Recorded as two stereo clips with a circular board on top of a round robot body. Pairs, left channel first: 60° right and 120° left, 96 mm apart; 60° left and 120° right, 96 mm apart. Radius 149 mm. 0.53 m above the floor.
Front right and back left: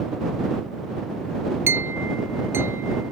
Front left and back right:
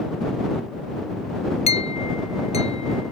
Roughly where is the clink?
Ahead left.